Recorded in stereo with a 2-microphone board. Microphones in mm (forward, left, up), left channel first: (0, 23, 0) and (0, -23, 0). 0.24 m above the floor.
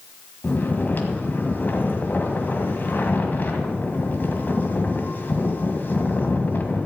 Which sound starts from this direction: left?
Snoring, at 0.4 s.